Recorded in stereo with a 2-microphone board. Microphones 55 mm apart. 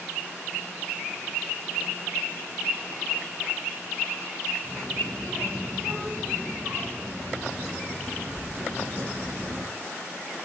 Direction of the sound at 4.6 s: 40° right (ahead or behind).